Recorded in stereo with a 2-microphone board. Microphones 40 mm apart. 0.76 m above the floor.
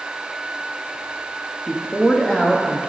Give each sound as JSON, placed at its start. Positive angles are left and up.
{"t": 1.7, "sound": "a woman speaking", "side_deg": 15, "distance_m": 0.8}